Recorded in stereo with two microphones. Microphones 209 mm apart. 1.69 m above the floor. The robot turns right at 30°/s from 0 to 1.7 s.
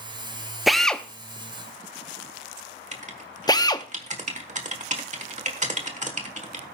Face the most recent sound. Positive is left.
turn(degrees=-35)  # may be behind; listen again after turning